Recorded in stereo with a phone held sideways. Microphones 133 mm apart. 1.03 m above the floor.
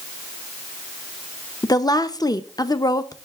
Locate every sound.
1.6 s a woman speaking: 30° left (ahead or behind), 0.7 m